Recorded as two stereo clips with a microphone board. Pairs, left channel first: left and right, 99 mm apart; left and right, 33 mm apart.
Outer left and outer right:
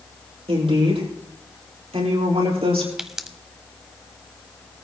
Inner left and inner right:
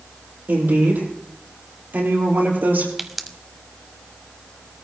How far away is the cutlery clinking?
I don't hear cutlery clinking.